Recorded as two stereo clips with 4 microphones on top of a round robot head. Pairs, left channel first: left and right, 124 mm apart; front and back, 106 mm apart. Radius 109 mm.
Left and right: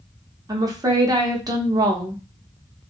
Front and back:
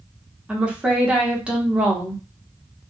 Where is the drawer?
No drawer in this recording.